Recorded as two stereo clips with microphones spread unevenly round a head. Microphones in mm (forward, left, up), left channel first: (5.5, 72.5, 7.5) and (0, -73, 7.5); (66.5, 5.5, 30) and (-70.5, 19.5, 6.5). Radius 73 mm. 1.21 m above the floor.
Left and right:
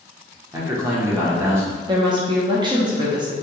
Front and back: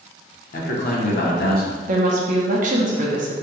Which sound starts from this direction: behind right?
A woman speaking, at 1.9 s.